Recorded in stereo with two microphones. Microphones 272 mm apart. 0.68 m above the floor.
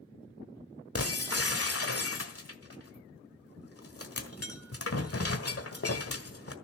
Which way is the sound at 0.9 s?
55° left (ahead or behind).